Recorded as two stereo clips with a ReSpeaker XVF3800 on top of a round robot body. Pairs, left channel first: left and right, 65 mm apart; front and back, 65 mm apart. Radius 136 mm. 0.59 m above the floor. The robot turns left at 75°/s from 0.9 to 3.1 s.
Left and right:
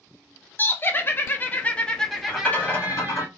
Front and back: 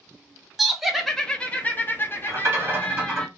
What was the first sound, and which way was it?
Laughter, 100° left.